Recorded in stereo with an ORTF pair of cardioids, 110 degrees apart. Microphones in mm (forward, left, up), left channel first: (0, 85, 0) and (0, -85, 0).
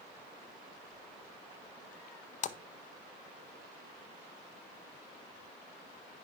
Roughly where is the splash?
Ahead left.